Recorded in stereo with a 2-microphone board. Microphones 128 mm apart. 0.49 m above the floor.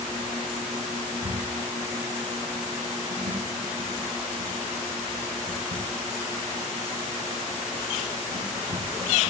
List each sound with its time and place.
1.1 s a squeak: 70° right (ahead or behind), 6 m